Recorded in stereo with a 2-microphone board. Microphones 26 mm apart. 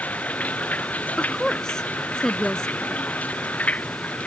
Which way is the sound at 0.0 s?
85° left.